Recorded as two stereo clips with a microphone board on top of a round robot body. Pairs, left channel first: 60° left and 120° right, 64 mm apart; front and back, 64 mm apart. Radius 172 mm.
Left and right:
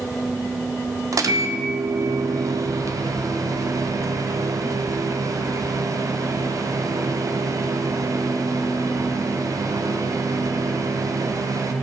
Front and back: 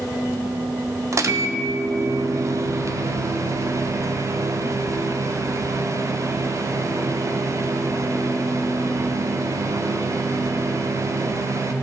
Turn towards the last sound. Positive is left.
turn(degrees=-145)